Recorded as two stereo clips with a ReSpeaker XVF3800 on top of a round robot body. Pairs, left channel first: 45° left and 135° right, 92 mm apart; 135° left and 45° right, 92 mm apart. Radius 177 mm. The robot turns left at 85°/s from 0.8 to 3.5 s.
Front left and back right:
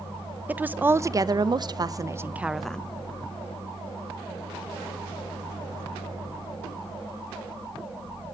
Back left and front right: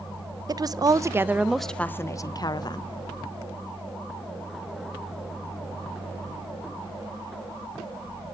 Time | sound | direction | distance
0.5 | a woman speaking | 70° right | 0.7 m